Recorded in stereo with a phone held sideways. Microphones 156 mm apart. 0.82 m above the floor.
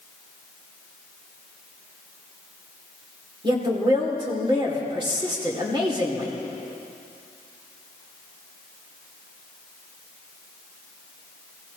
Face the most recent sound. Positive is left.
turn(degrees=-30)  # may be behind; listen again after turning